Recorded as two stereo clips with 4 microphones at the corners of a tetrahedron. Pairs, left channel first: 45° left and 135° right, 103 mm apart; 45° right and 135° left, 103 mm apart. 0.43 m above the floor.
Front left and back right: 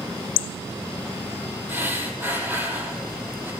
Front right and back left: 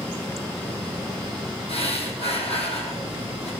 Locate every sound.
1.7 s breathing: 65° right, 2.5 m